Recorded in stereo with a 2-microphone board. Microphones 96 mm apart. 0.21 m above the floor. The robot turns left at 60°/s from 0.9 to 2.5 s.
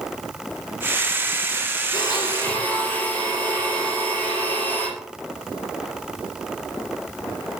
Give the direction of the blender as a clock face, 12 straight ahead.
10 o'clock.